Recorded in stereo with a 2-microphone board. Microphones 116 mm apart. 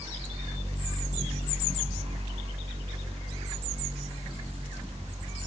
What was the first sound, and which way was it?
Only background noise.